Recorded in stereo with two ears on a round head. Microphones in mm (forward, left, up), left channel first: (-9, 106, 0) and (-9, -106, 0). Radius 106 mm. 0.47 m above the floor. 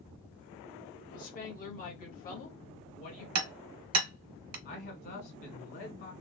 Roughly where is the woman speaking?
Left.